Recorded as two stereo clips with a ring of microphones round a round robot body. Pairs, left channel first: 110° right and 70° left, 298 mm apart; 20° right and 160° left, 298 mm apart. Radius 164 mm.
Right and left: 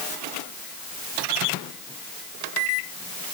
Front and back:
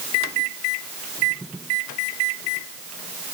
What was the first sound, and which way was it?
Only background noise.